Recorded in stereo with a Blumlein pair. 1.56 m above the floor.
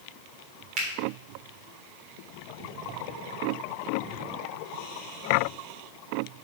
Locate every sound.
0.8 s a finger snap: 35° right, 3.5 m